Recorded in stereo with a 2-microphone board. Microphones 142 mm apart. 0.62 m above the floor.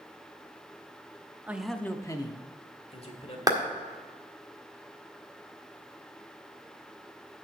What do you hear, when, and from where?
1.5 s a man speaking: 15° right (ahead or behind), 0.6 m; by 3.4 s 45° left (ahead or behind), 1.7 m
3.5 s a clap: 25° right (ahead or behind), 1.6 m